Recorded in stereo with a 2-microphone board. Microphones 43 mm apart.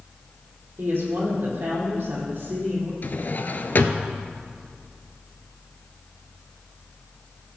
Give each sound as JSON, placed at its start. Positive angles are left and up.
{"t": 0.8, "sound": "a woman speaking", "side_deg": -55, "distance_m": 4.5}
{"t": 3.0, "sound": "a drawer", "side_deg": 50, "distance_m": 0.6}